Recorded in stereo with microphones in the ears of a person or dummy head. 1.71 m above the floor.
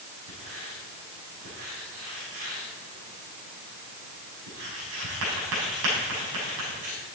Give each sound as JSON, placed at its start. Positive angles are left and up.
{"t": 0.3, "sound": "writing", "side_deg": -80, "distance_m": 6.5}